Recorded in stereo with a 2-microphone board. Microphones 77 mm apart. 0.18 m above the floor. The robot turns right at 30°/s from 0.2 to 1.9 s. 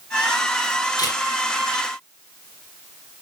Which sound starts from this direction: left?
A camera shutter, at 1.0 s.